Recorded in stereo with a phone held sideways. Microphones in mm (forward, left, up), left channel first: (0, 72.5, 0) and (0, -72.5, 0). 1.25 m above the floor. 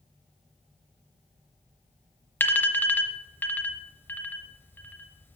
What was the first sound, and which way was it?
An alarm, 10° left (ahead or behind).